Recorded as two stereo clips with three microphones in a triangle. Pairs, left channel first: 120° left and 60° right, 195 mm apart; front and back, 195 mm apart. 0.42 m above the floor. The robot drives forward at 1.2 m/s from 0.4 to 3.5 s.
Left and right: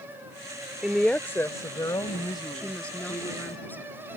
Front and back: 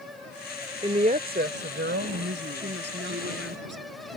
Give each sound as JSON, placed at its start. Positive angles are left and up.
{"t": 0.8, "sound": "a woman speaking", "azimuth_deg": -140}
{"t": 2.5, "sound": "a woman speaking", "azimuth_deg": -155}